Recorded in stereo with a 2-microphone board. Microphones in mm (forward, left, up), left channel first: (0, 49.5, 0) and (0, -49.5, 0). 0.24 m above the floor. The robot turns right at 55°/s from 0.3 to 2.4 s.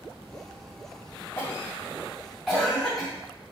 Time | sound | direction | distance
1.4 | a cough | 25° left (ahead or behind) | 1.7 m